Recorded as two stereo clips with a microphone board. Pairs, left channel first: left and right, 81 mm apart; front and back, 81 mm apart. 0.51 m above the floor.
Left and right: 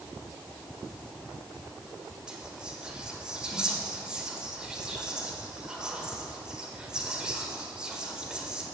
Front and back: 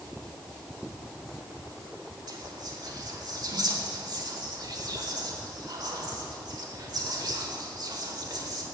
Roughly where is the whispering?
Behind.